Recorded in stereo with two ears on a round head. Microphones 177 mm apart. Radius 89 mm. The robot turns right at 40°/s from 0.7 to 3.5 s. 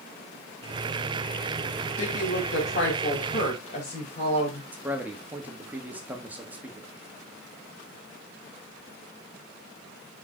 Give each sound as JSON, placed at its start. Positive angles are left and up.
{"t": 2.0, "sound": "a woman speaking", "azimuth_deg": 80, "distance_m": 2.5}
{"t": 4.7, "sound": "a man speaking", "side_deg": -10, "distance_m": 1.3}